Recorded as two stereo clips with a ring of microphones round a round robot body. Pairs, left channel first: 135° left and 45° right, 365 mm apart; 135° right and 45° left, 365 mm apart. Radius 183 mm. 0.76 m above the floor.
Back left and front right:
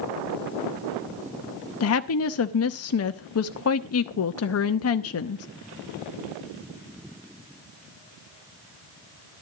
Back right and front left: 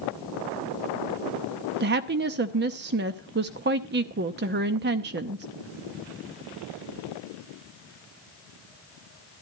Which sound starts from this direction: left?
A woman speaking, at 1.8 s.